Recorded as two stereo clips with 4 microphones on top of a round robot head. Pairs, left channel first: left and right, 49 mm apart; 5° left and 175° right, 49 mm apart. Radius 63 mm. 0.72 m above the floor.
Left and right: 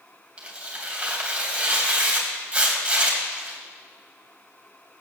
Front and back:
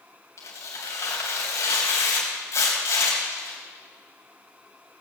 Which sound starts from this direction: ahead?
Tearing paper, at 0.4 s.